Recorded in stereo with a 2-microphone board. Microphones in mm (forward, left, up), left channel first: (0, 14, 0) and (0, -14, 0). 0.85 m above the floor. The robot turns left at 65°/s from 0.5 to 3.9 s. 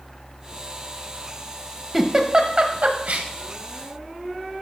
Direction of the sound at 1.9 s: 10° right (ahead or behind).